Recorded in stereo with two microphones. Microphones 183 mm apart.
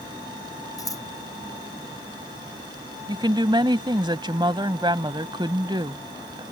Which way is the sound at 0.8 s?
20° left (ahead or behind).